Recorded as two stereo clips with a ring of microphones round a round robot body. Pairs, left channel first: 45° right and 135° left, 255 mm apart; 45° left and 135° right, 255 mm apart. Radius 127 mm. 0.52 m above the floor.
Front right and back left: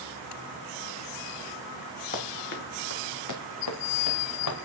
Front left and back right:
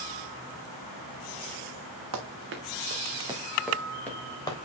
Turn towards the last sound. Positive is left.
turn(degrees=-30)